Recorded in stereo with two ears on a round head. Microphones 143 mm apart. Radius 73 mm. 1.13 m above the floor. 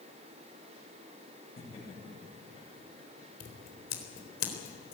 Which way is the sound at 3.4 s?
60° left (ahead or behind).